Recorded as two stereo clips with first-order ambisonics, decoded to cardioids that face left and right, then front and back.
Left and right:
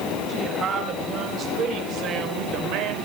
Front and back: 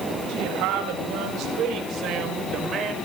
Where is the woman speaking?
155° right, 6 m; by 3.0 s 115° right, 4.5 m.